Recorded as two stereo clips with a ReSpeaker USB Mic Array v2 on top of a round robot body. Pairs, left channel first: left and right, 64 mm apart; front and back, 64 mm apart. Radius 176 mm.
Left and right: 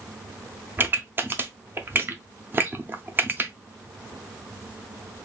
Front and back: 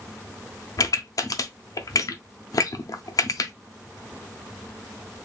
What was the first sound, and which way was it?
A pop, 30° right.